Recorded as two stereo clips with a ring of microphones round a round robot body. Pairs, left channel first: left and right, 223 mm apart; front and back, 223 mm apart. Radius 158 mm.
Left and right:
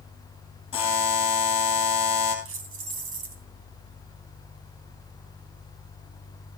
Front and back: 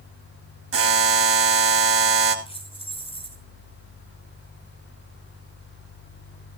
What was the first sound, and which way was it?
A buzzer, 165° left.